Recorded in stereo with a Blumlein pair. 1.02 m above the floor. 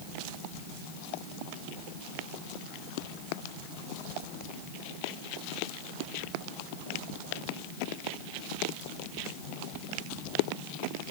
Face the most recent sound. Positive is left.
No sound to turn to.